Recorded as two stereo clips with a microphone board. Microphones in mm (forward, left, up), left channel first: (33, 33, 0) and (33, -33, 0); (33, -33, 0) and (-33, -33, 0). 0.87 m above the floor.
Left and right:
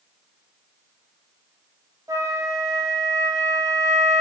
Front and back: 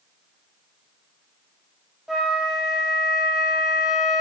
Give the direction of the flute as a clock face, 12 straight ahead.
3 o'clock.